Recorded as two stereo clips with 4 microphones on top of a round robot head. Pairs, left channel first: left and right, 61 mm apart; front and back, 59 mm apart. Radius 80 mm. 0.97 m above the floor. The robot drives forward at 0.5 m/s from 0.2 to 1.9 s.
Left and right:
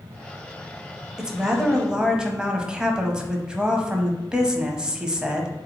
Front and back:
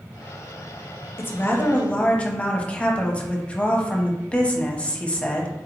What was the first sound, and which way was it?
A woman speaking, 15° right.